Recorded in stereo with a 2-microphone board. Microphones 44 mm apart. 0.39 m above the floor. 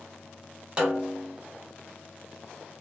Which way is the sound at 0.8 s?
25° right (ahead or behind).